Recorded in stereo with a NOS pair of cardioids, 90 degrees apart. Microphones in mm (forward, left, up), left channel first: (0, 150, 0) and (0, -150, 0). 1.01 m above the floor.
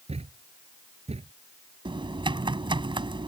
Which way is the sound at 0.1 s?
20° right.